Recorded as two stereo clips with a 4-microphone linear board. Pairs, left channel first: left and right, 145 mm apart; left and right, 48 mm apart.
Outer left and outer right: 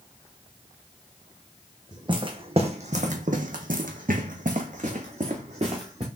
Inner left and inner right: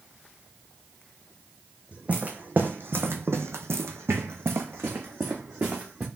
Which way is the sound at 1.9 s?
30° right (ahead or behind).